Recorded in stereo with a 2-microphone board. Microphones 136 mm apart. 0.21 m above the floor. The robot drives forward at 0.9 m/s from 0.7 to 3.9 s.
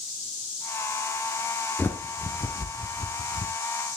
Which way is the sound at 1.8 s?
15° left (ahead or behind).